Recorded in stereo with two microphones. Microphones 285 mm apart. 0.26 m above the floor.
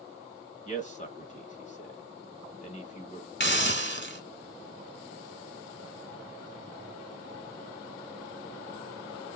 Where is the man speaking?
25° left (ahead or behind), 1.0 m.